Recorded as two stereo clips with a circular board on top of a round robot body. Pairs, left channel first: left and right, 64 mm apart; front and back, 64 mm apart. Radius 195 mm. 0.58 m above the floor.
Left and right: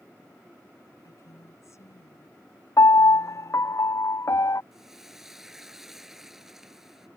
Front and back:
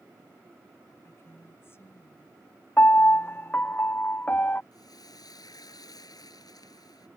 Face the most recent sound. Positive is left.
turn(degrees=-5)